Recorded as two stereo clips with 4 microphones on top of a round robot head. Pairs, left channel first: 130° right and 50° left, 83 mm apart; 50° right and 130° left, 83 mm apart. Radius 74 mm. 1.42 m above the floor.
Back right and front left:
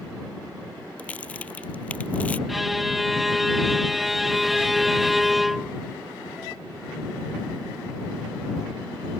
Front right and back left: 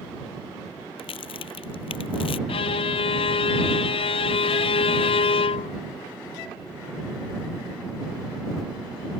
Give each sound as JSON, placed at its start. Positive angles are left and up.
{"t": 1.0, "sound": "a crack", "azimuth_deg": -55}
{"t": 2.5, "sound": "a violin", "azimuth_deg": -40}